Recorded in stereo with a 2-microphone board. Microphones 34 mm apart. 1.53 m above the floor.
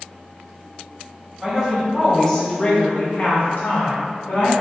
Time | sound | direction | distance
1.4 | a woman speaking | 10° right (ahead or behind) | 1.1 m